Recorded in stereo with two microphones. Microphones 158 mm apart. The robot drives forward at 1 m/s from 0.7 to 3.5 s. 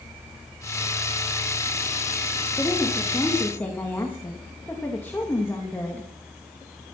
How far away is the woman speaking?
About 3.5 m.